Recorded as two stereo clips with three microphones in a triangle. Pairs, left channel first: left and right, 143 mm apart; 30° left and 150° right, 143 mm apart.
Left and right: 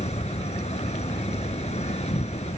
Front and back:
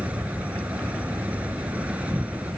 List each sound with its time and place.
0.0 s an insect: 130° left